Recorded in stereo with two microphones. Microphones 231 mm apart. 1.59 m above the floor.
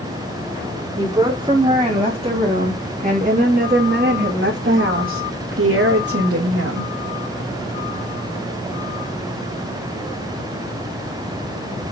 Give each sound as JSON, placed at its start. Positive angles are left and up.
{"t": 1.0, "sound": "a woman speaking", "side_deg": -15, "distance_m": 4.0}